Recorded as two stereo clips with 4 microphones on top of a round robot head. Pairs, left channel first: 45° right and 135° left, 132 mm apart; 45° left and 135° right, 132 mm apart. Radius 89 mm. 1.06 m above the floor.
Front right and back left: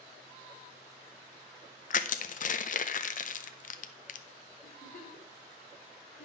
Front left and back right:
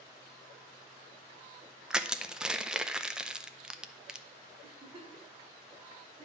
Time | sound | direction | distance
1.9 | crushing | 50° right | 0.6 m
4.6 | a giggle | 85° right | 2.5 m